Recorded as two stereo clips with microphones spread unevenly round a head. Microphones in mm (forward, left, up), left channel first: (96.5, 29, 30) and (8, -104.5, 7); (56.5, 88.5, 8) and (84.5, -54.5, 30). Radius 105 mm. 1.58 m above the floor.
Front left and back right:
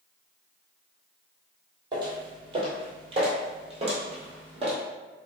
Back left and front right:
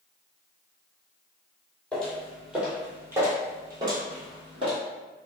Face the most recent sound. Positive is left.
turn(degrees=-75)